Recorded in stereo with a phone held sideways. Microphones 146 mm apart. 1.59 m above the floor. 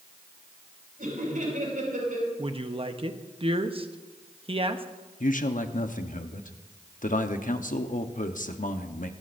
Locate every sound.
1.0 s laughter: 85° right, 8 m
2.4 s a woman speaking: 40° right (ahead or behind), 0.9 m
5.2 s a man speaking: 70° left (ahead or behind), 1.0 m